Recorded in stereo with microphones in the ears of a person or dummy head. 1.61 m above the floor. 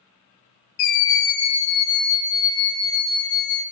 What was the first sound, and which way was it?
A scream, 70° left (ahead or behind).